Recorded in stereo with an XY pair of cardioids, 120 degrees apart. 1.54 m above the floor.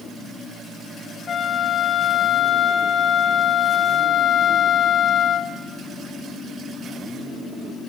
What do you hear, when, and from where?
1.3 s a flute: 40° left, 1.5 m